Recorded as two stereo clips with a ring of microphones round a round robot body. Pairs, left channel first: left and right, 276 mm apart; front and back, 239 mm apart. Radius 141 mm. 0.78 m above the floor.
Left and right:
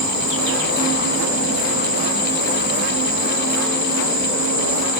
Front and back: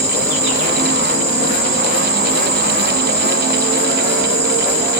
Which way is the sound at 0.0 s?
125° left.